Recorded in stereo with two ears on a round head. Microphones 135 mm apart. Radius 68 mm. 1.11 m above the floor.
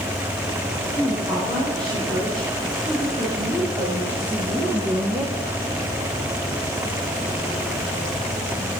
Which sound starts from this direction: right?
A woman speaking, at 0.9 s.